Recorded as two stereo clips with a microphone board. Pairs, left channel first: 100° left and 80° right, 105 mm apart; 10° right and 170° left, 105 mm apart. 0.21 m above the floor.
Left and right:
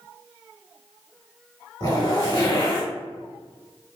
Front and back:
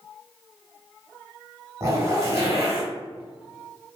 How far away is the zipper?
About 1.2 m.